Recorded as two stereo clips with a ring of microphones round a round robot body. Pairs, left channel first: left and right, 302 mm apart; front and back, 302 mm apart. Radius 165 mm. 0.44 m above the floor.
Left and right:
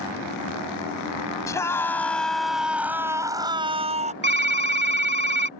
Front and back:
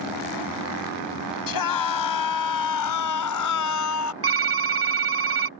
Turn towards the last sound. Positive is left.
turn(degrees=-140)